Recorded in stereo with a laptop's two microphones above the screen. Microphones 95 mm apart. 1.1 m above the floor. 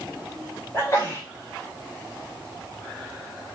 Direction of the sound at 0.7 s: 25° left (ahead or behind).